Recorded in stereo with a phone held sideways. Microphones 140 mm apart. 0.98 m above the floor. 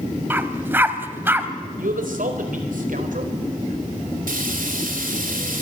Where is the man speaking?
75° right (ahead or behind), 4 m.